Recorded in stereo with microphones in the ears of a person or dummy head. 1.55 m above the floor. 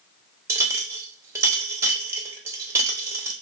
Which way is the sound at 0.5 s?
15° right (ahead or behind).